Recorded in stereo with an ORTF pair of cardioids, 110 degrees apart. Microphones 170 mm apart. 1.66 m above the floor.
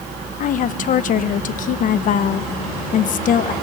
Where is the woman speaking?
55° left, 1.4 m.